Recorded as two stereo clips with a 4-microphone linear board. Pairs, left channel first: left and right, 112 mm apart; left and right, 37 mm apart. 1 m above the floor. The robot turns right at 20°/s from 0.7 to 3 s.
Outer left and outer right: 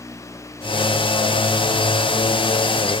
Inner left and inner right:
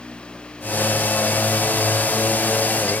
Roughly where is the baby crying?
I don't hear a baby crying.